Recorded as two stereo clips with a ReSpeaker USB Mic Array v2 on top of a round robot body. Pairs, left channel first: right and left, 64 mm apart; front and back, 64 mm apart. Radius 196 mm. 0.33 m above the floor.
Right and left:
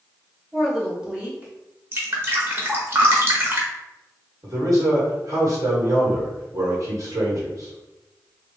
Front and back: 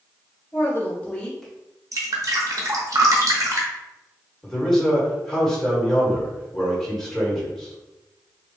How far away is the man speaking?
About 1.7 m.